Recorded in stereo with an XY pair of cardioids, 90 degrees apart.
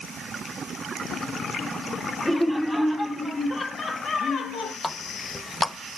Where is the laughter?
15° left, 2 m; by 4.7 s 75° left, 1.6 m.